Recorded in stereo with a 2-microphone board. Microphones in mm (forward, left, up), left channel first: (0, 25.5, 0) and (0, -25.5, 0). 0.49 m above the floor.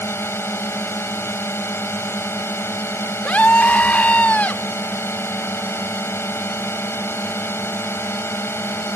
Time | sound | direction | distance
0.0 | a drone | 50° left (ahead or behind) | ?
3.2 | a scream | 30° left (ahead or behind) | ?